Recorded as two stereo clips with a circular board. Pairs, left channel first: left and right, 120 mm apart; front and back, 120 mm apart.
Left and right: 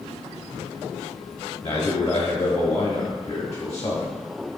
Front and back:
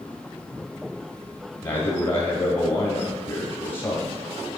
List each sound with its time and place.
1.6 s a man speaking: 30° left, 1.4 m